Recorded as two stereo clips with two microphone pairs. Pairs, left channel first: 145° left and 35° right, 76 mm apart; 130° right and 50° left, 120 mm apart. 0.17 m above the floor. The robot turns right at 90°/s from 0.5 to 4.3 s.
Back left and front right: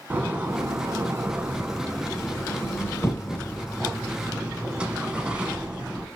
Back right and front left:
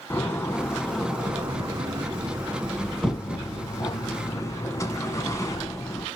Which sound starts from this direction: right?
A door slam, at 0.1 s.